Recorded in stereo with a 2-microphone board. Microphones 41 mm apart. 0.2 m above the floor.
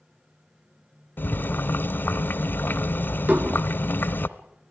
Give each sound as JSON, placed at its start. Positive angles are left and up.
{"t": 1.2, "sound": "boiling", "side_deg": 55, "distance_m": 0.7}
{"t": 3.3, "sound": "dishes clattering", "side_deg": -50, "distance_m": 1.3}